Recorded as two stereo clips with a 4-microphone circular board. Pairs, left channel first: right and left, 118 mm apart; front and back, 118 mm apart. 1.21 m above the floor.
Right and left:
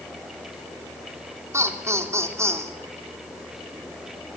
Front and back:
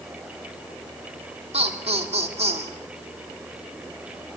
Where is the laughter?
155° left, 3.5 m.